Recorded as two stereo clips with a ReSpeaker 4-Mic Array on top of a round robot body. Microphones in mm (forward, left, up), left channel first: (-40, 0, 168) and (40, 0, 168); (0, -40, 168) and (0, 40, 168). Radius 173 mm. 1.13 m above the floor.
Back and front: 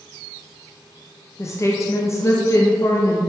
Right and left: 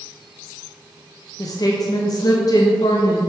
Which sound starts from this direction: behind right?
A woman speaking, at 1.4 s.